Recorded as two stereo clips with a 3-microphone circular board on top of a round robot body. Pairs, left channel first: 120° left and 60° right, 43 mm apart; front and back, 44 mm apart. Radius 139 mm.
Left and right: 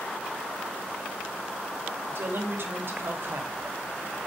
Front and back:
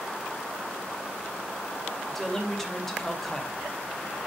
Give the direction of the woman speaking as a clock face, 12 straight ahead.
3 o'clock.